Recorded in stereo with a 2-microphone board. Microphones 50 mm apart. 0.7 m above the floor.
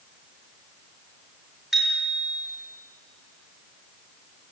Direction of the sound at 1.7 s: 5° right (ahead or behind).